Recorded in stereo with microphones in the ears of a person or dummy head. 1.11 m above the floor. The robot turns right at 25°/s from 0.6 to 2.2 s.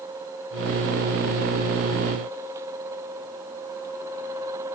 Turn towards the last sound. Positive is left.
No sound to turn to.